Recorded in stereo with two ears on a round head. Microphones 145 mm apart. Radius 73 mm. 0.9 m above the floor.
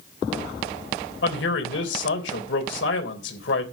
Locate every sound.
1.2 s a man speaking: 80° left, 3.5 m